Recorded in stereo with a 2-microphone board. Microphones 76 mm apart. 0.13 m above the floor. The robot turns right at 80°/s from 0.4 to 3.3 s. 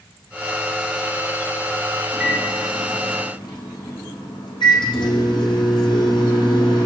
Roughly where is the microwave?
Ahead.